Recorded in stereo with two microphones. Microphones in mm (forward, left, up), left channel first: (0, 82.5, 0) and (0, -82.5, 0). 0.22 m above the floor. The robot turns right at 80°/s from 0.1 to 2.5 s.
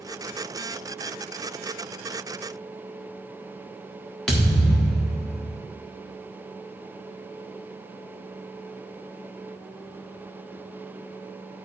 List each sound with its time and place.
4.3 s a thud: 5° left (ahead or behind), 1.9 m